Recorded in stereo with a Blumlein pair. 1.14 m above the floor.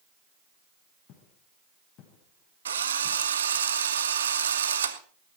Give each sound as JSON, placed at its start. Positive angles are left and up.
{"t": 1.1, "sound": "footsteps", "azimuth_deg": 35, "distance_m": 5.5}
{"t": 2.6, "sound": "a drill", "azimuth_deg": -65, "distance_m": 1.6}